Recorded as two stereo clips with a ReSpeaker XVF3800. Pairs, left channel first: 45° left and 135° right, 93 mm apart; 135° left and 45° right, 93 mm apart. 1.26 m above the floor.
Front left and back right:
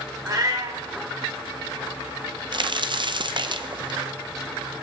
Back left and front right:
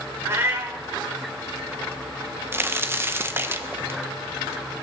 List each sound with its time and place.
0.2 s a cat meowing: 100° right, 1.4 m
2.5 s a crack: 110° right, 0.6 m